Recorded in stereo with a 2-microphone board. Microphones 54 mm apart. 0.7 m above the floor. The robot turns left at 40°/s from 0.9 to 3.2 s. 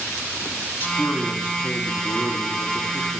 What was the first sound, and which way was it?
A man speaking, 115° left.